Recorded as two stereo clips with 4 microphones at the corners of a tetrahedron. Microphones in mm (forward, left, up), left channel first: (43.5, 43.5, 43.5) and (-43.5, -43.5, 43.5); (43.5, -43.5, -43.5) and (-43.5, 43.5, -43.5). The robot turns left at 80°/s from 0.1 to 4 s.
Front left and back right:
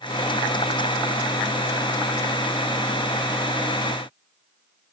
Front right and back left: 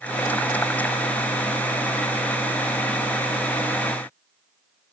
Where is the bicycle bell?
I don't hear a bicycle bell.